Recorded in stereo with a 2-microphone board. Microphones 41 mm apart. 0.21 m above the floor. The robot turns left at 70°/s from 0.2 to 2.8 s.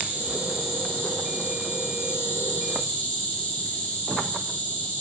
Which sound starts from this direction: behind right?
An insect, at 0.0 s.